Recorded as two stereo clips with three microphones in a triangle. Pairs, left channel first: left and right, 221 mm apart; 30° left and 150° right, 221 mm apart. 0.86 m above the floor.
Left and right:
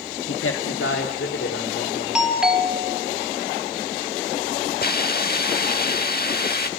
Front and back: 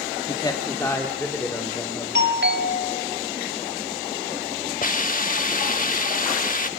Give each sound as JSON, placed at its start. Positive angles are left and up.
{"t": 0.3, "sound": "a man speaking", "azimuth_deg": 95, "distance_m": 1.1}
{"t": 2.1, "sound": "a doorbell", "azimuth_deg": -175, "distance_m": 2.0}
{"t": 4.8, "sound": "a hiss", "azimuth_deg": 65, "distance_m": 0.8}